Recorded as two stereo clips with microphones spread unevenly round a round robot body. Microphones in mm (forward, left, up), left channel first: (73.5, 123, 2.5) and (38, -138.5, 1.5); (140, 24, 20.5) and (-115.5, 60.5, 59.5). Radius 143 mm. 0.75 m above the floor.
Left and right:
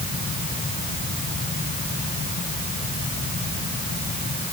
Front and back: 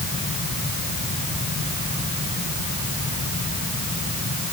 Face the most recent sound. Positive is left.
No sound to turn to.